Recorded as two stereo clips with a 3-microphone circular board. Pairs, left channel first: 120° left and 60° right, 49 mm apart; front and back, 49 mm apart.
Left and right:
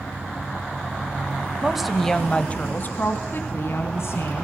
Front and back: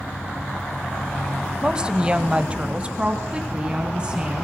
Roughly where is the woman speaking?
Behind right.